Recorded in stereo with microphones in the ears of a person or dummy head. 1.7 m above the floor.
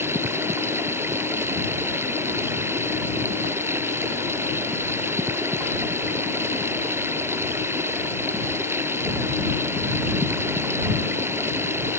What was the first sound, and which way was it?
Running water, 10° right (ahead or behind).